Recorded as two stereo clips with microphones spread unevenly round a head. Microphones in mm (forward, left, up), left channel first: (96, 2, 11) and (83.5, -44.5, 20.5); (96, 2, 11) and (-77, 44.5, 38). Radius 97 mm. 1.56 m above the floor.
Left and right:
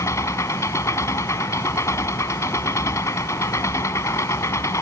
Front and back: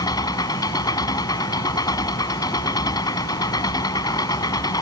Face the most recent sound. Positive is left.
turn(degrees=60)